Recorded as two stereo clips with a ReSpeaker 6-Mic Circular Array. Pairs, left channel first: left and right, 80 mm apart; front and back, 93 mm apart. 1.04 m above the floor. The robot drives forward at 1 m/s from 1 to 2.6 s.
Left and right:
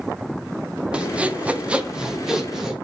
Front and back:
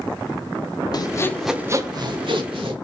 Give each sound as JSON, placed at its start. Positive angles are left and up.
{"t": 0.9, "sound": "sawing", "azimuth_deg": -15, "distance_m": 0.6}